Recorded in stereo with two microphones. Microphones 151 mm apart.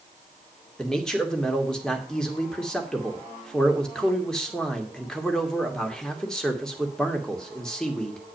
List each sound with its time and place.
0.8 s a man speaking: 5° left (ahead or behind), 2.0 m